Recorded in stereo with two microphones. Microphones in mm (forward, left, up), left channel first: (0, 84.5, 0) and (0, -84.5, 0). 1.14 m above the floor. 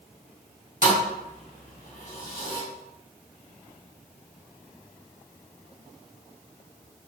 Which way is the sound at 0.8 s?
55° left (ahead or behind).